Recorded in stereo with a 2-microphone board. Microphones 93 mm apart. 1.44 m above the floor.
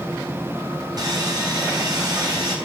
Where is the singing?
I don't hear singing.